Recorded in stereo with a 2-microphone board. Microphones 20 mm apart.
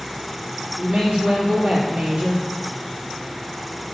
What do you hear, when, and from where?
0.8 s a woman speaking: 60° right (ahead or behind), 3 m